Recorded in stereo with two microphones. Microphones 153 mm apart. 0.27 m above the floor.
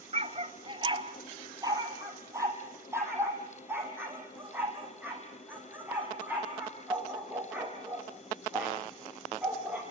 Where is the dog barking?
45° right (ahead or behind), 1.5 m; by 9.8 s 10° right (ahead or behind), 10.5 m.